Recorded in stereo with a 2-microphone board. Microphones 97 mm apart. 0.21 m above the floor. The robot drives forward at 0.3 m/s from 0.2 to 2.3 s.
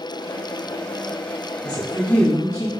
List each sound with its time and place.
1.6 s a woman speaking: 40° left (ahead or behind), 1.2 m